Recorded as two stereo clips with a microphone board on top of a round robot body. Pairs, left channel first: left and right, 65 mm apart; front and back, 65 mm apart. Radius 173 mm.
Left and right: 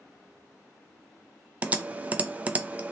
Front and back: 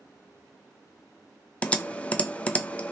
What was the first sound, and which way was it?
Typing on a keyboard, 45° right.